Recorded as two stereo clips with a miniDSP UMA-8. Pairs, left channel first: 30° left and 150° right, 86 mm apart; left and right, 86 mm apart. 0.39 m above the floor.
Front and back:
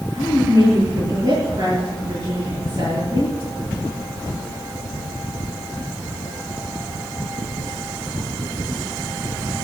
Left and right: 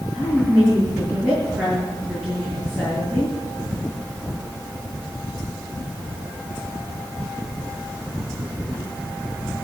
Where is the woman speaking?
165° right, 7 m.